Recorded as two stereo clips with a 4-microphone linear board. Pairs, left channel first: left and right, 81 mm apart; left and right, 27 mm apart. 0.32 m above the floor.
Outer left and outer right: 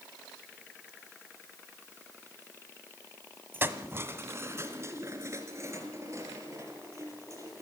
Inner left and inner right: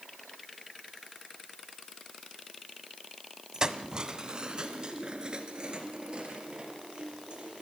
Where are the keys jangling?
30° right (ahead or behind), 1.2 m; by 7.6 s 40° right (ahead or behind), 5.5 m.